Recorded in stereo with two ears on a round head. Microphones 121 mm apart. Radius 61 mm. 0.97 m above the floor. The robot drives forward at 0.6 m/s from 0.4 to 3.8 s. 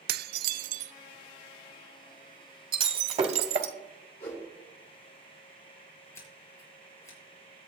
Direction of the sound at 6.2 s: 25° left (ahead or behind).